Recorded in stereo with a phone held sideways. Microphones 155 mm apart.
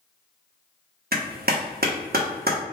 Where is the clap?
80° right, 1.1 m.